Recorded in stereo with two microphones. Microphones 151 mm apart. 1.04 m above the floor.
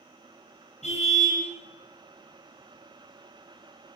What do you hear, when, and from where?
0.8 s a car horn: 55° left (ahead or behind), 8.5 m